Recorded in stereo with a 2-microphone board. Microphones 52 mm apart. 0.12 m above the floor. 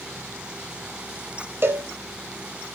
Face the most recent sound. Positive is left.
turn(degrees=-45)  # may be behind; listen again after turning